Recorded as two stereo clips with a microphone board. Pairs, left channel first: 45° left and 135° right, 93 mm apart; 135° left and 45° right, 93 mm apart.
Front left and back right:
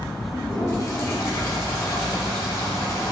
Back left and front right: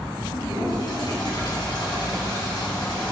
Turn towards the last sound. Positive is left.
turn(degrees=100)